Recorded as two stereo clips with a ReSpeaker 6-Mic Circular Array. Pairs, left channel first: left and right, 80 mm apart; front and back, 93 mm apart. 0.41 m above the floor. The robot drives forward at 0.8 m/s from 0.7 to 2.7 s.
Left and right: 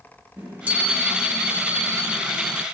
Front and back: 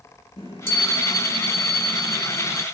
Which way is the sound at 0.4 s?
20° right.